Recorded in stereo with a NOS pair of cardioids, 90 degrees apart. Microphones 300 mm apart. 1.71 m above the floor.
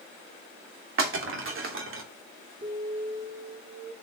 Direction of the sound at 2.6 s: 35° right.